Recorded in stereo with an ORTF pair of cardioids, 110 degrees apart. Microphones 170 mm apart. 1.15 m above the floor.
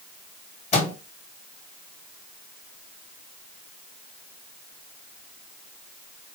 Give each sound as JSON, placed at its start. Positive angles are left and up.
{"t": 0.7, "sound": "a microwave", "azimuth_deg": 40, "distance_m": 1.3}